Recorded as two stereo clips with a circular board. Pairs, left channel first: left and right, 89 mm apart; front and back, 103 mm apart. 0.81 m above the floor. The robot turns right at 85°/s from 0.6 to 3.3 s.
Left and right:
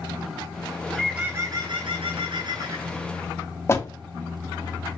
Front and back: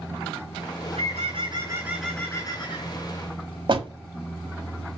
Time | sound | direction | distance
0.8 | a bird | 160° left | 4 m
3.7 | a door slam | 150° left | 1.3 m